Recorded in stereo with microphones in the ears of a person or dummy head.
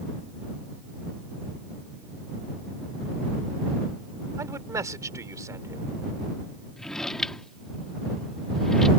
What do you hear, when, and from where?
4.4 s a man speaking: 15° right (ahead or behind)
6.8 s a drawer: 5° left (ahead or behind)